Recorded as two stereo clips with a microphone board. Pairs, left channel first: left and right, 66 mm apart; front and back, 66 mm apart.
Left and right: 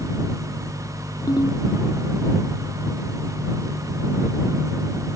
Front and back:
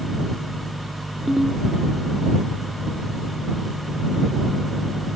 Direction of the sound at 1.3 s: 95° left.